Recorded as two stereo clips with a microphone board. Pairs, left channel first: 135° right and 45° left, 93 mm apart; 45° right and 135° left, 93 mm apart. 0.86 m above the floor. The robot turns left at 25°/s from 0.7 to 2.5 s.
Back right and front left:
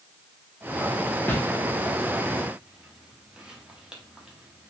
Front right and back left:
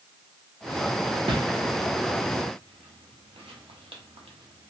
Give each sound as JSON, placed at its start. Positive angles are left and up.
{"t": 1.3, "sound": "a whoosh", "azimuth_deg": 155, "distance_m": 0.8}